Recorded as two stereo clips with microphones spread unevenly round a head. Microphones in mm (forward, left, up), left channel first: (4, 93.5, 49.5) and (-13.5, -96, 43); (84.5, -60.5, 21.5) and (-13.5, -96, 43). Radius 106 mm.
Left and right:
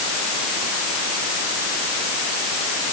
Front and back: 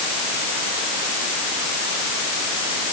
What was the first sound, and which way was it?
Only background noise.